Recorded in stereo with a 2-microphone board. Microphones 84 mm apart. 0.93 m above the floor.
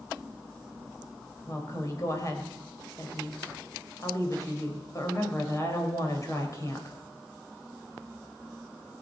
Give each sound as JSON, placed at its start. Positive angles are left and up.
{"t": 1.5, "sound": "a woman speaking", "side_deg": 40, "distance_m": 4.0}